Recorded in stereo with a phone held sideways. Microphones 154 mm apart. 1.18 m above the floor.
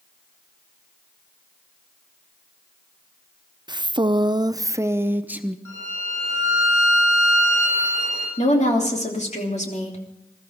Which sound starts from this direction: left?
A woman speaking, at 8.4 s.